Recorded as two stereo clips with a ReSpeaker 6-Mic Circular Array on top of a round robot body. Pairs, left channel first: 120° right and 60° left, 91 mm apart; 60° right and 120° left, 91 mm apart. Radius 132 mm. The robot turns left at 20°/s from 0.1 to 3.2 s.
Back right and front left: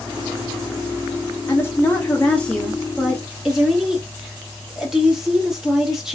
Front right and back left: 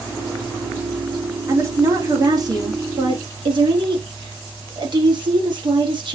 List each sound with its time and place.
1.5 s a woman speaking: straight behind, 1.3 m; by 6.1 s 145° left, 1.3 m